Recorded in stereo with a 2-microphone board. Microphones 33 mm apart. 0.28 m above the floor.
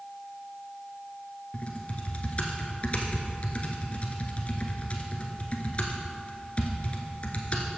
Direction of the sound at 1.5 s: 40° left (ahead or behind).